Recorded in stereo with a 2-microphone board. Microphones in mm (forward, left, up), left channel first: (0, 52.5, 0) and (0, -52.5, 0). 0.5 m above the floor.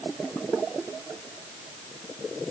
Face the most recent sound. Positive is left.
No sound to turn to.